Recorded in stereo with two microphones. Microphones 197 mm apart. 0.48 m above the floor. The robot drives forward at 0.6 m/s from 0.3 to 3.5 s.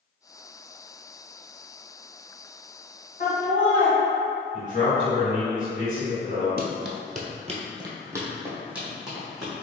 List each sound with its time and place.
3.2 s laughter: 45° left (ahead or behind), 1.8 m
4.5 s a man speaking: 40° left (ahead or behind), 1.7 m
6.6 s running footsteps: 50° right (ahead or behind), 0.7 m; by 9.5 s centre (ahead or behind), 2 m